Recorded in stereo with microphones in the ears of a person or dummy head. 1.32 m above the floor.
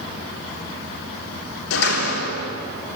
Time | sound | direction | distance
1.7 | a door slam | 90° left | 3 m